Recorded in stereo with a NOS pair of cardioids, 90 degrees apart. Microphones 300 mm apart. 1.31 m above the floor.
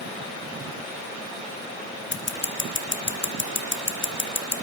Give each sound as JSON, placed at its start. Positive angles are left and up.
{"t": 2.1, "sound": "scissors", "azimuth_deg": 40, "distance_m": 2.5}